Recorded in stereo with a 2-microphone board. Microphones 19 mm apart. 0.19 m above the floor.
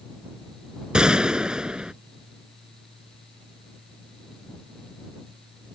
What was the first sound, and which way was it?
A gunshot, 45° right (ahead or behind).